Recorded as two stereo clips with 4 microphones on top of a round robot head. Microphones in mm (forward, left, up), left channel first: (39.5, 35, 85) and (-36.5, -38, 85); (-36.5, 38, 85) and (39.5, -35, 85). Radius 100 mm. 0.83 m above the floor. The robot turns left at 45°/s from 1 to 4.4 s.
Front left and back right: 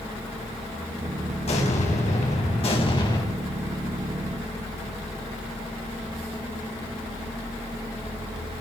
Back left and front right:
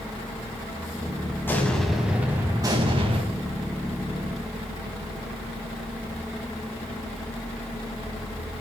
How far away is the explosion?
About 4.5 m.